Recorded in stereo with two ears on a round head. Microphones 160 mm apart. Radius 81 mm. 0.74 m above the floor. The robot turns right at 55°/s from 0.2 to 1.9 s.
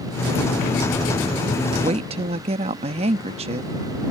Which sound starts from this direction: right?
A woman speaking, at 1.8 s.